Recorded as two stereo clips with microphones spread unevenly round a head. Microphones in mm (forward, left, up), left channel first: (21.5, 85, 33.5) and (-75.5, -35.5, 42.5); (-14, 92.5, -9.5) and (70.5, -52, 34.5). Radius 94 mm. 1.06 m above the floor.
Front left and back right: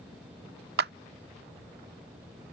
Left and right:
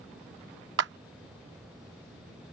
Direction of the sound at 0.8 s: 95° right.